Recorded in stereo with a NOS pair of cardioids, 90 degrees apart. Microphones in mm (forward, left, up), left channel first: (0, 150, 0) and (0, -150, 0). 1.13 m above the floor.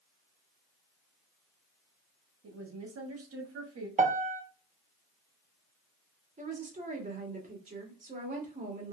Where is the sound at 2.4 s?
50° right, 1.6 m.